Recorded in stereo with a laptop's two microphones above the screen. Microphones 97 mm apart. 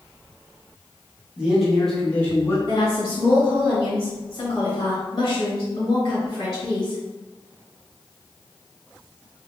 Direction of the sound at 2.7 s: 40° left (ahead or behind).